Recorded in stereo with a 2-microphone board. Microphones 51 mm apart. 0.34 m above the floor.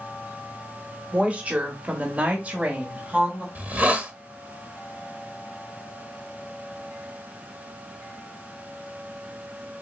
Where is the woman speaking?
25° right (ahead or behind), 1.1 m.